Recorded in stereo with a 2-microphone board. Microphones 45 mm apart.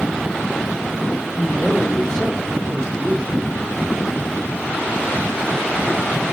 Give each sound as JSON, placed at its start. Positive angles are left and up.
{"t": 1.3, "sound": "a man speaking", "side_deg": 30, "distance_m": 1.4}